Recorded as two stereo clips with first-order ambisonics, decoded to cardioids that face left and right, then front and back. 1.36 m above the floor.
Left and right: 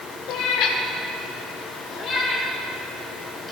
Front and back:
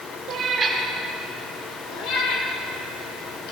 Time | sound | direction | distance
0.3 | a cat meowing | 125° left | 2 m